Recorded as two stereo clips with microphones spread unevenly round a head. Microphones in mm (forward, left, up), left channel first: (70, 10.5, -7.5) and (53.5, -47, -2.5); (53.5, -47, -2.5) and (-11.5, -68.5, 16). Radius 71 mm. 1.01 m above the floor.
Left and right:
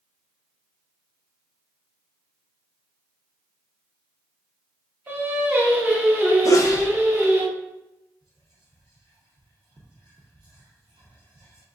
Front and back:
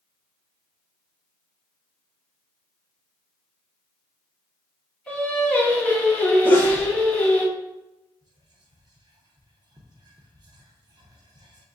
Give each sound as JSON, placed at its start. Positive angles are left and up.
{"t": 5.1, "sound": "singing", "azimuth_deg": -55, "distance_m": 1.3}
{"t": 6.5, "sound": "a sneeze", "azimuth_deg": 75, "distance_m": 0.5}
{"t": 8.2, "sound": "whispering", "azimuth_deg": -150, "distance_m": 0.7}